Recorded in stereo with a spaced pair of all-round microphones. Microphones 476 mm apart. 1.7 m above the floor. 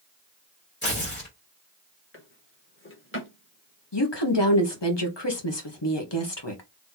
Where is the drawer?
25° left (ahead or behind), 1.0 m.